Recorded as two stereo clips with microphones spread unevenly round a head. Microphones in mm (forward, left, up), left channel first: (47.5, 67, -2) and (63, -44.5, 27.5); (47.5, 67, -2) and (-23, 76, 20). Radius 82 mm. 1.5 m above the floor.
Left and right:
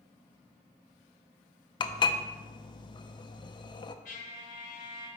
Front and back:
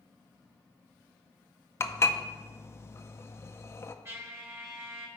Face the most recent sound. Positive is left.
turn(degrees=140)